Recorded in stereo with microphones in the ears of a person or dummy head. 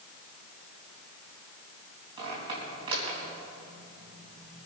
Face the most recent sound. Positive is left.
turn(degrees=-30)  # may be behind; listen again after turning